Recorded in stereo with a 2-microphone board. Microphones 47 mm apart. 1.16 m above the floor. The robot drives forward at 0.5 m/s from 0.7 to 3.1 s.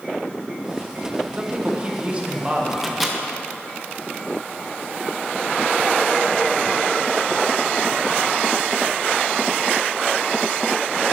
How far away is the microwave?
About 0.6 m.